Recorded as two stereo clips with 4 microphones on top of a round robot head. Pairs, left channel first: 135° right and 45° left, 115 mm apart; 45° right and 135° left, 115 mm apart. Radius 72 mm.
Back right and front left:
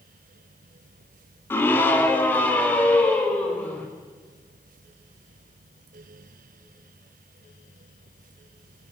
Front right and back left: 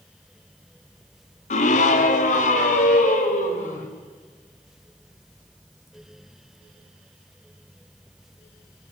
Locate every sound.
1.5 s a scream: 65° right, 2 m; by 3.9 s 60° right, 5 m